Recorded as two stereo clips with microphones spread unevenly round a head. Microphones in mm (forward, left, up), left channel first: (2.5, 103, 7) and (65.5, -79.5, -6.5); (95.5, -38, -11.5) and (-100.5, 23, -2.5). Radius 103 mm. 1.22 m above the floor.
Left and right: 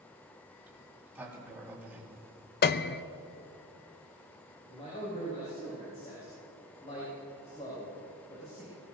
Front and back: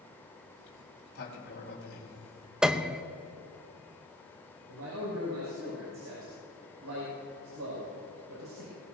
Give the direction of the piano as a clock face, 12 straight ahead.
9 o'clock.